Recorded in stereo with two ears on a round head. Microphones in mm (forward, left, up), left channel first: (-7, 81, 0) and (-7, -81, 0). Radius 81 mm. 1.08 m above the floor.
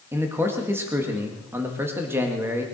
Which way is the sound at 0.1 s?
15° right (ahead or behind).